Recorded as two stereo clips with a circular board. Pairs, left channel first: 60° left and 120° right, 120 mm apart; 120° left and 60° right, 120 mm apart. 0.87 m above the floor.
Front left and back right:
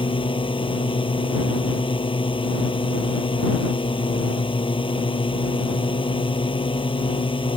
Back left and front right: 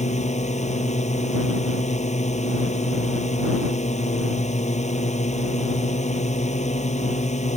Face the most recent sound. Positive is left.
turn(degrees=105)